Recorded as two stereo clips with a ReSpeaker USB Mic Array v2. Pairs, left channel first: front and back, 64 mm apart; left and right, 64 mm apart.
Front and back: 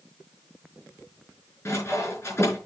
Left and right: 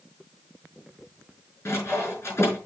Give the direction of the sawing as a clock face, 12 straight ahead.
11 o'clock.